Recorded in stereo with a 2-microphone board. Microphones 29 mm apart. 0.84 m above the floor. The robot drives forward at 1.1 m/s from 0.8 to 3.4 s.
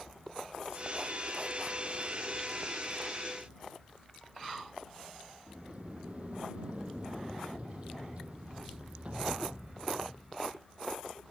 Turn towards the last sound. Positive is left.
turn(degrees=-45)  # may be behind; listen again after turning